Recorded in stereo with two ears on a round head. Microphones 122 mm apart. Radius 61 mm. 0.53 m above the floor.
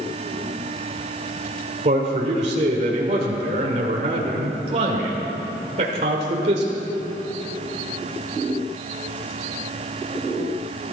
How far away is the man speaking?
About 1.9 m.